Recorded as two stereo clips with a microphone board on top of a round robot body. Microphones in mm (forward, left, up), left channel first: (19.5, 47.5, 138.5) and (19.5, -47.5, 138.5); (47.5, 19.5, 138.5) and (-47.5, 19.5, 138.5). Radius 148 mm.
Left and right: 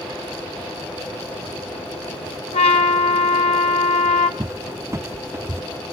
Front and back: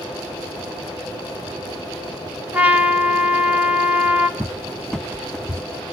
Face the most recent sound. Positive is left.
turn(degrees=-80)